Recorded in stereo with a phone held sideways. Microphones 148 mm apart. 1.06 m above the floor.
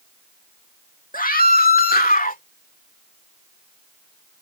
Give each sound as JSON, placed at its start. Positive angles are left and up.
{"t": 1.1, "sound": "a scream", "side_deg": 65}